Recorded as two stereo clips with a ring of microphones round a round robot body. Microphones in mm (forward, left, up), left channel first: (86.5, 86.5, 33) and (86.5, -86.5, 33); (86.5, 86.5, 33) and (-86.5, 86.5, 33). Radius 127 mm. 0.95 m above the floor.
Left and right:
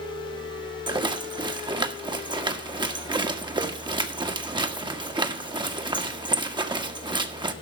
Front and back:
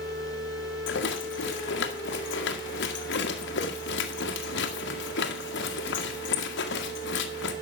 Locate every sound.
0.9 s a rattle: 25° right, 1.6 m